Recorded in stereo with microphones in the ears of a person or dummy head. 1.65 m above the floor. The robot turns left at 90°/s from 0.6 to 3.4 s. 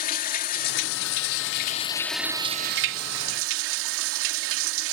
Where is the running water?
140° left; by 4.9 s 115° right.